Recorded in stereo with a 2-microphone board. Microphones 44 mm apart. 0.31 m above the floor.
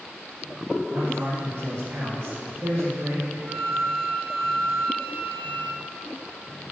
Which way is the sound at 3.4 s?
45° right (ahead or behind).